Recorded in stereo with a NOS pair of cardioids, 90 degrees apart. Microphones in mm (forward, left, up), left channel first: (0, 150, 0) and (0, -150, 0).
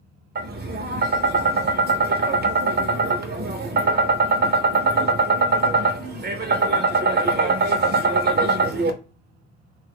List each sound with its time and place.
0.3 s tapping: 35° right, 0.7 m